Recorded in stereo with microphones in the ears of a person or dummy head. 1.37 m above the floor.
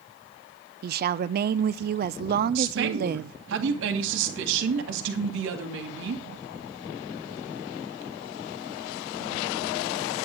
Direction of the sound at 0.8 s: 50° right (ahead or behind).